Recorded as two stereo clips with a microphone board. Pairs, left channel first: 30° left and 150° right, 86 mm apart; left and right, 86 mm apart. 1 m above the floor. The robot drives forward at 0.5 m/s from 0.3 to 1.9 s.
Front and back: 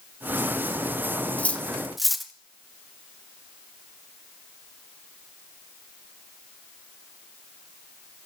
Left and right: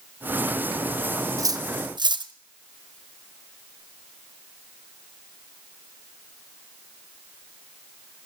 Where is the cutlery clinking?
40° right, 0.7 m; by 2.3 s 60° right, 0.5 m.